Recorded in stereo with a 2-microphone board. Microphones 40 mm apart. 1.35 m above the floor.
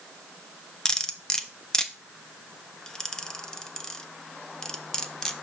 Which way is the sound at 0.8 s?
15° left (ahead or behind).